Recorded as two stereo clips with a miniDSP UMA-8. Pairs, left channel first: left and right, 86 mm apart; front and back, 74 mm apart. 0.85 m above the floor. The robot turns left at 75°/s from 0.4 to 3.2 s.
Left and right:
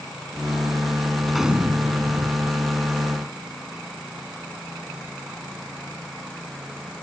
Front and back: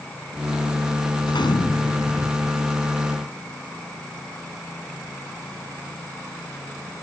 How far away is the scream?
No scream in this recording.